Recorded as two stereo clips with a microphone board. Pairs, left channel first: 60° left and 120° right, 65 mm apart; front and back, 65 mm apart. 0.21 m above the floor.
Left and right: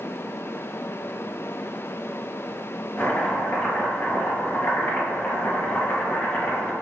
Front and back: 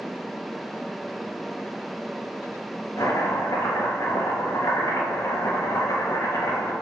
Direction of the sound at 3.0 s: 10° left.